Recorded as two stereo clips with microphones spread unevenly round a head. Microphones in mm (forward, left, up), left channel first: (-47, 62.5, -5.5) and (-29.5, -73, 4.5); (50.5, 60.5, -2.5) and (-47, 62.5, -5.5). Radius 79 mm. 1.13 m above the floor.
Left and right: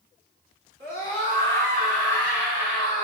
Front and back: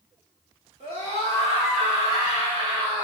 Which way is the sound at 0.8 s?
45° right.